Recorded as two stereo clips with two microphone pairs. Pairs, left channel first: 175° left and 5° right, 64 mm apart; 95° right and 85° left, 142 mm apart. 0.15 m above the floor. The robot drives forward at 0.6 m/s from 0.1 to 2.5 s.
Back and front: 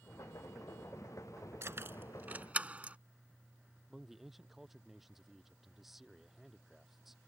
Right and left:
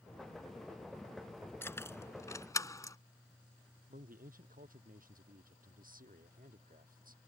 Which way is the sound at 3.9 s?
85° left.